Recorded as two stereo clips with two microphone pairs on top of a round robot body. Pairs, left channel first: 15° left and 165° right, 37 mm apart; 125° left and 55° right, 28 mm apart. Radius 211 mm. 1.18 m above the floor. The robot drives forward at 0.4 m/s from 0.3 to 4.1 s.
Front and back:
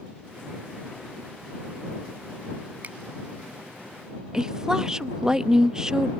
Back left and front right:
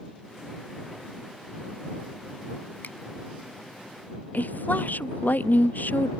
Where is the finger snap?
145° left.